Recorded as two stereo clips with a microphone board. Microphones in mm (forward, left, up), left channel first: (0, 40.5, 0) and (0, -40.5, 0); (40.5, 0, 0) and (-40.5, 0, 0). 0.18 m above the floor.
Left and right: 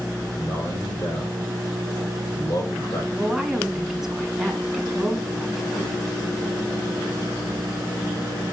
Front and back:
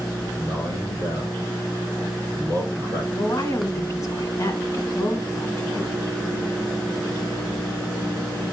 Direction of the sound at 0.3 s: 55° left.